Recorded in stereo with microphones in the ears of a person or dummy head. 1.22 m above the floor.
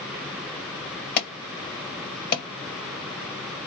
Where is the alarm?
50° left (ahead or behind), 1.2 m.